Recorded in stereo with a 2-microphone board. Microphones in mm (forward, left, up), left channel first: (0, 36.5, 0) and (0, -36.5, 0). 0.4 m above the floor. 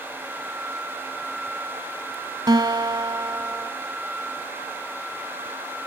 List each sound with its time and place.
2.5 s a guitar: 70° right (ahead or behind), 0.6 m